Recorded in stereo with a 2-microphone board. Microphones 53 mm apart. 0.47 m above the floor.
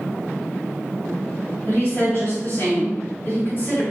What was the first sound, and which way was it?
A woman speaking, 40° left (ahead or behind).